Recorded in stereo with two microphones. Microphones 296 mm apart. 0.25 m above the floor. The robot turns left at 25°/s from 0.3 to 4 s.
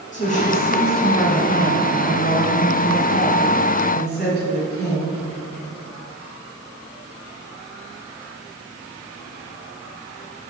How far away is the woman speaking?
About 1.7 m.